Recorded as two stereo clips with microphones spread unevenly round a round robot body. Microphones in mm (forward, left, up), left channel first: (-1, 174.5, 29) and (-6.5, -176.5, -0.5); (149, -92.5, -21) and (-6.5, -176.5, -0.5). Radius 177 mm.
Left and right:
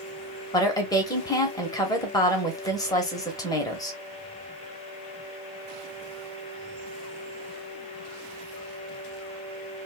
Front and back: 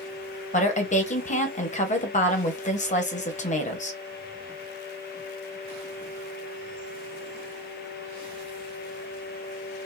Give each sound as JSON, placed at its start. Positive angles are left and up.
{"t": 0.5, "sound": "a woman speaking", "azimuth_deg": 10, "distance_m": 1.3}